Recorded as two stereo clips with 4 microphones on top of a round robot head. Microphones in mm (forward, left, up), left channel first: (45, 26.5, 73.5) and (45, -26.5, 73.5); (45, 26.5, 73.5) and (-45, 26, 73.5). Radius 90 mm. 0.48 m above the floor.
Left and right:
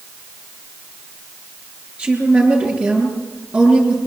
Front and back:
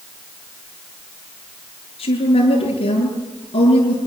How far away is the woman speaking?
About 9.5 m.